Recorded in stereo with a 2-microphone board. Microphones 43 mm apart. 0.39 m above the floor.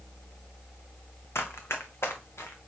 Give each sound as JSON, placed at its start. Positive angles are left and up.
{"t": 1.4, "sound": "running footsteps", "side_deg": 75, "distance_m": 1.3}